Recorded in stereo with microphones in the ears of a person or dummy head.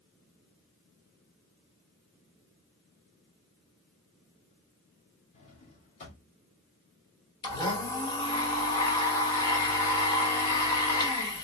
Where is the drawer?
35° left (ahead or behind), 1.6 m.